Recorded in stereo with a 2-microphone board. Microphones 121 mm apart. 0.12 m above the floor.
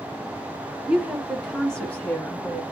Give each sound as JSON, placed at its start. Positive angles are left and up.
{"t": 0.9, "sound": "a woman speaking", "side_deg": -10, "distance_m": 2.5}